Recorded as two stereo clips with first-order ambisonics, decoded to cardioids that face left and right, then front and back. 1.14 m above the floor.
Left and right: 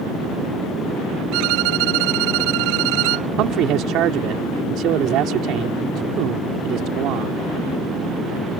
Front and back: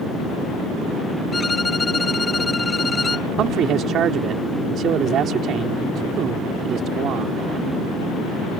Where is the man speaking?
130° right.